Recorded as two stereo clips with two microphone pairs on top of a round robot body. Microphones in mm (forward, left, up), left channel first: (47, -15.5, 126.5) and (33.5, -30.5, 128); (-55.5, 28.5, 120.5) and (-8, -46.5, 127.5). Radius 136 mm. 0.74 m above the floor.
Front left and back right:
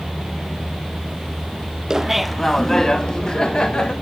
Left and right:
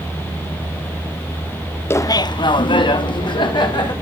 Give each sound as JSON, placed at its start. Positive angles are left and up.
{"t": 1.9, "sound": "laughter", "azimuth_deg": 175, "distance_m": 0.6}